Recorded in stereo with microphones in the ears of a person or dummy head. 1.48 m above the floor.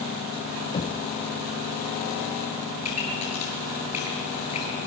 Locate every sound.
0.7 s knocking: 30° left (ahead or behind), 0.7 m
2.8 s a pop: 30° left (ahead or behind), 10 m